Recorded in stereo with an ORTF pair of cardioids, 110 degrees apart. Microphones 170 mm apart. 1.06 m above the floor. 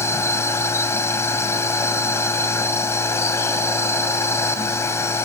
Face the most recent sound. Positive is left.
turn(degrees=15)